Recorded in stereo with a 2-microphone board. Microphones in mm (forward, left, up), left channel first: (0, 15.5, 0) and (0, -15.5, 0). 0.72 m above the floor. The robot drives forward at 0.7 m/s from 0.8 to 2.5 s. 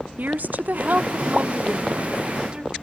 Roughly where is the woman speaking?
Right.